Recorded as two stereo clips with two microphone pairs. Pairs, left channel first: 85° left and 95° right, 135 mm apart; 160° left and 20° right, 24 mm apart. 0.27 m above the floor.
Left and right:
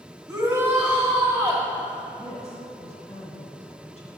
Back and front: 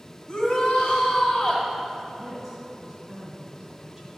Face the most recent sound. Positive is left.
turn(degrees=65)